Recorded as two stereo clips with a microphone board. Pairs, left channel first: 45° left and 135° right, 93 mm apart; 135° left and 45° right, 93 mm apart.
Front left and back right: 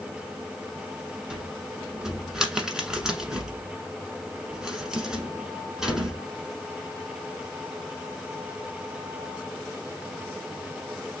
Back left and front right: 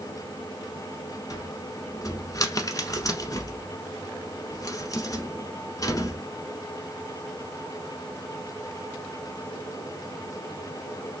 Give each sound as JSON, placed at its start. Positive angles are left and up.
{"t": 1.3, "sound": "a cupboard door", "azimuth_deg": 150, "distance_m": 1.1}